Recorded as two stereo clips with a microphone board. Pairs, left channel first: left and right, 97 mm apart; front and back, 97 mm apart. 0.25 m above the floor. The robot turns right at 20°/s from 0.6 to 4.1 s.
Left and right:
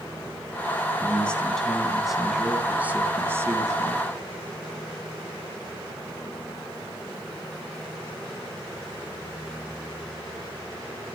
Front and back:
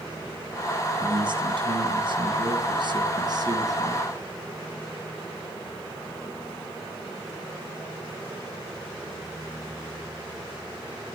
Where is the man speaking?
160° left, 2.5 m; by 4.1 s 135° right, 2.5 m.